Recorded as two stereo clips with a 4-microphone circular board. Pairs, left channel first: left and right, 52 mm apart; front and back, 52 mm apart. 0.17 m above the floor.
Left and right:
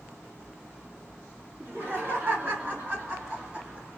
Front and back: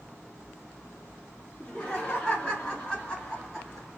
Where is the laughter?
65° right, 2 m; by 3.9 s 70° right, 1.5 m.